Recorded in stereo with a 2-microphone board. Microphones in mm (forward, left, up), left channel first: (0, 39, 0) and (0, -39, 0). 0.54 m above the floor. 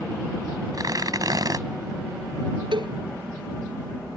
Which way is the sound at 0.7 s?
55° right (ahead or behind).